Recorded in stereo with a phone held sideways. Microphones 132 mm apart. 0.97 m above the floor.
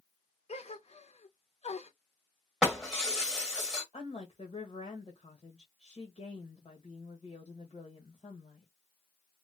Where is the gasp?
55° left (ahead or behind), 0.7 m.